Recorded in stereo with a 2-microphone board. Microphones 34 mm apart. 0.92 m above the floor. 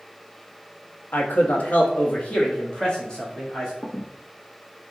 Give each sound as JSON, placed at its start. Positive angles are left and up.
{"t": 1.1, "sound": "a man speaking", "side_deg": 65, "distance_m": 1.0}
{"t": 3.8, "sound": "a squeak", "side_deg": 40, "distance_m": 1.2}